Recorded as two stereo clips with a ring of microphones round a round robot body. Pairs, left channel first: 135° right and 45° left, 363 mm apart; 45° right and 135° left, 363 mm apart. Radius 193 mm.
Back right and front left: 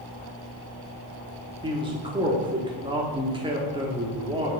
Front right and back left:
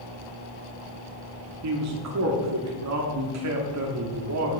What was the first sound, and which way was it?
A man speaking, 115° left.